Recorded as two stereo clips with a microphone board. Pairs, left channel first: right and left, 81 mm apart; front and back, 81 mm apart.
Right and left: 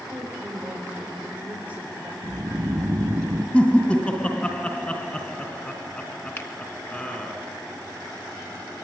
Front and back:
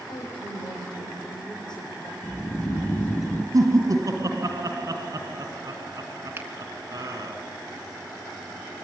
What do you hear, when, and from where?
0.1 s a woman speaking: 15° left, 8 m
2.2 s snoring: 55° left, 1.4 m
3.5 s laughter: 160° right, 2 m
6.4 s a finger snap: 130° right, 1.5 m